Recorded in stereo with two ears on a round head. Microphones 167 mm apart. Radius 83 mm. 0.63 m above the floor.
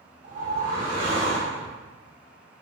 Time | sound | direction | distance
0.2 | a whoosh | 30° right (ahead or behind) | 1.3 m